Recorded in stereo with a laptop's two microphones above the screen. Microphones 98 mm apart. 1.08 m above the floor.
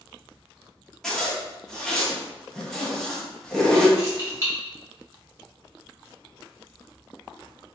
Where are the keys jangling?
30° right (ahead or behind), 1.2 m.